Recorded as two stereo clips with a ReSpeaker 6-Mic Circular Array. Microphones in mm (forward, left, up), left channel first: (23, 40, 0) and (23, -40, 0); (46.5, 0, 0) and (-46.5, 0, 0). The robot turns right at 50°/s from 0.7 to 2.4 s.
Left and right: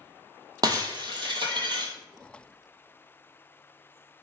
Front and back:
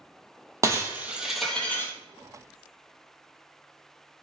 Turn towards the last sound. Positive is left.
turn(degrees=-40)